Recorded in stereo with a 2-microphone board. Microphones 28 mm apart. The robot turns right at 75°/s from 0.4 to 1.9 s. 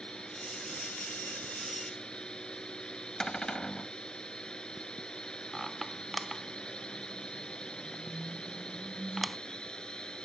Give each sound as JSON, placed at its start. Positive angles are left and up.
{"t": 0.0, "sound": "a drone", "azimuth_deg": 40}
{"t": 3.2, "sound": "a cupboard door", "side_deg": 30}
{"t": 5.5, "sound": "a squeak", "side_deg": -5}